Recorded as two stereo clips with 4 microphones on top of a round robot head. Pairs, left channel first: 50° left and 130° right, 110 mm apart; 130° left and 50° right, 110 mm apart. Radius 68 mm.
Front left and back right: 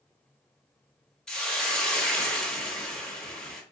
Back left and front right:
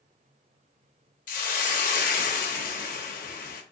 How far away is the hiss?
About 0.8 m.